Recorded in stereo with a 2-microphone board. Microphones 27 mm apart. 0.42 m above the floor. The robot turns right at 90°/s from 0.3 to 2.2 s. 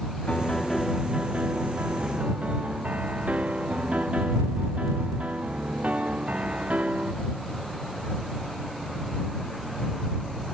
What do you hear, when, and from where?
0.3 s a piano: 140° left; by 7.1 s 45° right